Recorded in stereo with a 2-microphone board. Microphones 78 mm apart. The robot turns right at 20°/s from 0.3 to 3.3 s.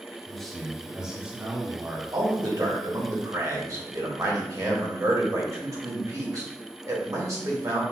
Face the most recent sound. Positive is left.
turn(degrees=-45)  # may be behind; listen again after turning